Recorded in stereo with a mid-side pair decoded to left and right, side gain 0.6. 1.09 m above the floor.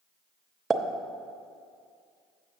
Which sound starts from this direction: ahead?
A pop, at 0.7 s.